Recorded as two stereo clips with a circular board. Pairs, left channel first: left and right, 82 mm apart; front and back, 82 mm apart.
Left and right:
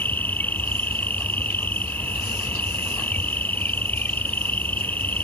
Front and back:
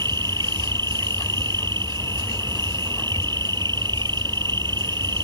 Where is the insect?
155° left.